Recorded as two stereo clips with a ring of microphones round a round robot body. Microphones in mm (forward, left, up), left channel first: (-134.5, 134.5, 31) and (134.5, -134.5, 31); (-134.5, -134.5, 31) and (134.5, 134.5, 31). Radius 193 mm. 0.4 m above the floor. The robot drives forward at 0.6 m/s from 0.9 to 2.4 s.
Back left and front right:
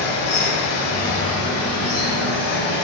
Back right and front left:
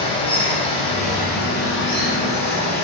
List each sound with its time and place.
0.0 s running water: 155° left, 0.7 m; by 2.8 s 170° left, 1.4 m